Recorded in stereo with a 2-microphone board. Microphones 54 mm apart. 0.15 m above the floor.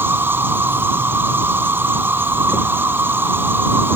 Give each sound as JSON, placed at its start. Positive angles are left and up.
{"t": 0.0, "sound": "an insect", "side_deg": -40}